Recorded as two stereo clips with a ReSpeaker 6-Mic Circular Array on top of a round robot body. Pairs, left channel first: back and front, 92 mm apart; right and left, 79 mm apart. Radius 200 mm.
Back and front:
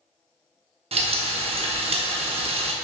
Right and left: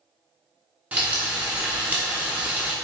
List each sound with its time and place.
0.9 s frying: 15° left, 0.7 m